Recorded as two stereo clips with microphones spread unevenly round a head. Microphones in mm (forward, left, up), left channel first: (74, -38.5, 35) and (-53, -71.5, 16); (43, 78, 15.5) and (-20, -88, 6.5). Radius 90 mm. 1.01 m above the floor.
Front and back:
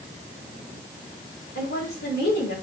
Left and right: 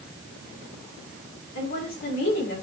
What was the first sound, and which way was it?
A woman speaking, 35° left.